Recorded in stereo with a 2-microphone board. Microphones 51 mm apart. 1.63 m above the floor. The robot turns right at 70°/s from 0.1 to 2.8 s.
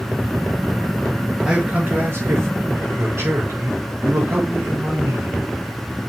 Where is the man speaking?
170° right, 4.5 m; by 5.4 s 75° right, 4.5 m.